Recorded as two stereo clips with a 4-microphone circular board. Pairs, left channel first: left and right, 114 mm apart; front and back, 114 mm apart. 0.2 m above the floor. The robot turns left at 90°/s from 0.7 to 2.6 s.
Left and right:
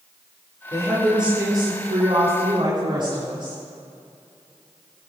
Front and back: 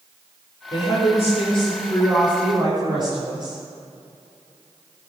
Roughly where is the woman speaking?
Ahead left.